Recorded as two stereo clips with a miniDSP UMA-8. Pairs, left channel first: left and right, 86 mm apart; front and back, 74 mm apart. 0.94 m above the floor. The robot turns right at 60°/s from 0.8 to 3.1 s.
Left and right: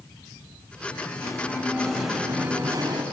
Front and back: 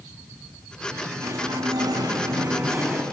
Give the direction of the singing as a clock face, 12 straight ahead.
8 o'clock.